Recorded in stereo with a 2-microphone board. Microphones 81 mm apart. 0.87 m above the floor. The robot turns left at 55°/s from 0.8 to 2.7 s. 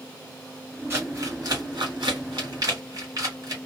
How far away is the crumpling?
About 1.8 m.